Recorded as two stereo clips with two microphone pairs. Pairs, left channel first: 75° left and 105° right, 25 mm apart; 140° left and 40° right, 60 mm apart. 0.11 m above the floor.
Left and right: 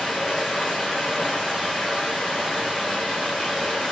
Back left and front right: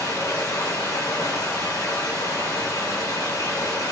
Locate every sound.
0.0 s running water: 150° left, 1.2 m